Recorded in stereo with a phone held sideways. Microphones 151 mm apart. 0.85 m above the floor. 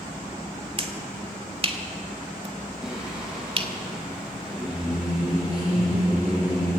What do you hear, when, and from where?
0.8 s a finger snap: 40° right (ahead or behind), 1.7 m
2.8 s singing: 5° right (ahead or behind), 8.5 m